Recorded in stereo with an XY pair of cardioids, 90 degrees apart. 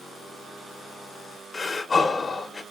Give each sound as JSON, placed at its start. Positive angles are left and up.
{"t": 1.5, "sound": "breathing", "azimuth_deg": 35, "distance_m": 0.6}